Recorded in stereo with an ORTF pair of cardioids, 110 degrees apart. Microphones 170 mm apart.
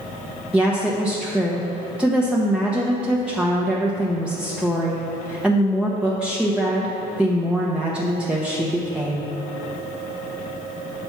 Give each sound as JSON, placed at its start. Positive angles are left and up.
{"t": 0.5, "sound": "a woman speaking", "azimuth_deg": -5, "distance_m": 0.8}